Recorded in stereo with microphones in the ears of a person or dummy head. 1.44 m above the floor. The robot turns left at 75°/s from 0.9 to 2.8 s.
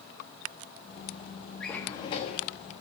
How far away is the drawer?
About 1.1 m.